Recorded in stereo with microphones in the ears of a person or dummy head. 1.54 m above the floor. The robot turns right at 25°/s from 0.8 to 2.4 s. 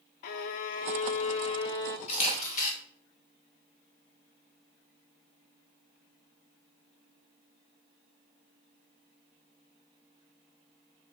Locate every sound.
0.2 s a violin: 50° left (ahead or behind), 0.6 m; by 2.0 s 25° left (ahead or behind), 0.6 m
2.1 s a camera shutter: 35° left (ahead or behind), 2 m; by 2.7 s 45° left (ahead or behind), 2 m